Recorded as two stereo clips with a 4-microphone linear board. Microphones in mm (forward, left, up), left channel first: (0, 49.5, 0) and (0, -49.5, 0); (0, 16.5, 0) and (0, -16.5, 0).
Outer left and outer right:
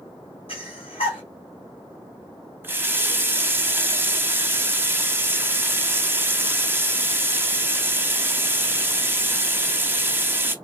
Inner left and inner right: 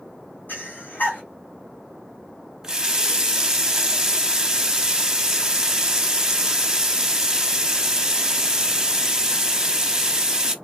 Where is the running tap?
20° right (ahead or behind), 0.5 m.